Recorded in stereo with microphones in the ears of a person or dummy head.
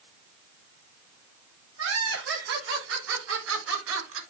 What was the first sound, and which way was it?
Laughter, 70° right (ahead or behind).